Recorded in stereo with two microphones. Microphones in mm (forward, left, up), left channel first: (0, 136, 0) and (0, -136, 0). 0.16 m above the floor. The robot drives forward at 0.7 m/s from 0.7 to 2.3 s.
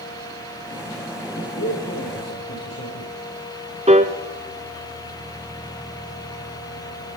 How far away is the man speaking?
About 8 m.